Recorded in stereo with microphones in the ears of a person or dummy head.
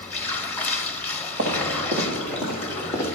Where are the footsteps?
35° right (ahead or behind), 1.7 m; by 3.2 s 10° left (ahead or behind), 2 m.